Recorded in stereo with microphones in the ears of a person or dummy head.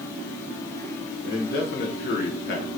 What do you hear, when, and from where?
1.2 s a man speaking: 60° left (ahead or behind), 1.3 m